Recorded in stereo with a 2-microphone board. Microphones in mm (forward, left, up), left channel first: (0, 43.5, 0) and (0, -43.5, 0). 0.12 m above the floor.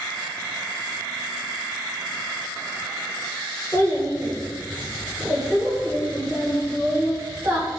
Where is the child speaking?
35° left (ahead or behind), 1.8 m; by 7.7 s 40° right (ahead or behind), 1.6 m.